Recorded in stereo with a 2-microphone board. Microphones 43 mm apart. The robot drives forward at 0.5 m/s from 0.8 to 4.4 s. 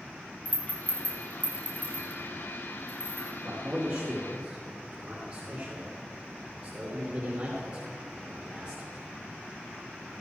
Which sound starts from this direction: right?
A man speaking, at 3.4 s.